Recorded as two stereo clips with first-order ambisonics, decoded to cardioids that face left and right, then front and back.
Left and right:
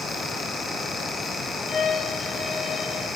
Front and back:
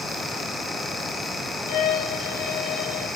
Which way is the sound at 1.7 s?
20° left.